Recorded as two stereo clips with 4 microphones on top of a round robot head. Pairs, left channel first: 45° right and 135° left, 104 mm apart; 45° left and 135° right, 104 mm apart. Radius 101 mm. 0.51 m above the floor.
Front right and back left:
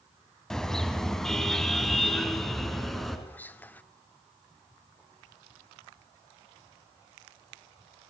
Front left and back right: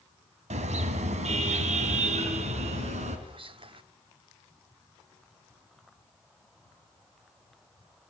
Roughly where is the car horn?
Behind right.